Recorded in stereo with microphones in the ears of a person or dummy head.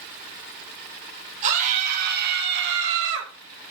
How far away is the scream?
About 4 m.